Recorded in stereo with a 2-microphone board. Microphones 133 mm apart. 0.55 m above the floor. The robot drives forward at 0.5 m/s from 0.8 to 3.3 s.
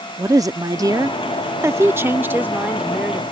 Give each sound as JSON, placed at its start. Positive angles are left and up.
{"t": 0.2, "sound": "a woman speaking", "side_deg": -25}